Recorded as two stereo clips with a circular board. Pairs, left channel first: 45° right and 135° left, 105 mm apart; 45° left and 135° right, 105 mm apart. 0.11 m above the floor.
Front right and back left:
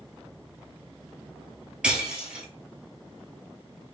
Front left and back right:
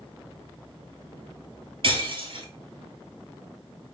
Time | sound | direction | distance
1.8 | breaking glass | 145° right | 1.0 m